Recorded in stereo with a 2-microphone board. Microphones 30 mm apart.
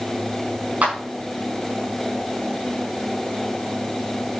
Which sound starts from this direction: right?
A clap, at 0.8 s.